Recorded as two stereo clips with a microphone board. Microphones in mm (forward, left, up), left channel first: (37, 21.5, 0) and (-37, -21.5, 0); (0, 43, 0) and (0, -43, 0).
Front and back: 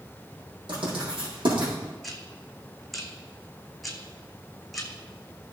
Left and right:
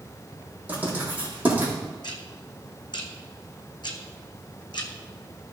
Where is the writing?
160° right, 4.5 m.